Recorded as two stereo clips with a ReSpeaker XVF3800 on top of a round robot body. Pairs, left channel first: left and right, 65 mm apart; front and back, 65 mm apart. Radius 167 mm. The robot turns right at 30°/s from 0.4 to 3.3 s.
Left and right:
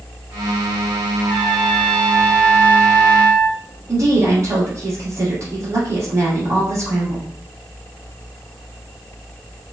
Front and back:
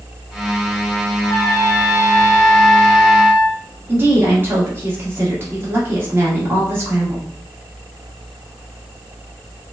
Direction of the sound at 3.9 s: 125° right.